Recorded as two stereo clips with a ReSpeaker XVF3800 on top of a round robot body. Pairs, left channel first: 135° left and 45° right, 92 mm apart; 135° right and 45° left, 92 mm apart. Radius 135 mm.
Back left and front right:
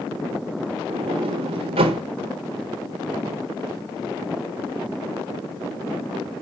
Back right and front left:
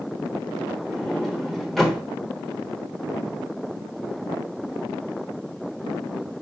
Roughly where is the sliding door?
Ahead right.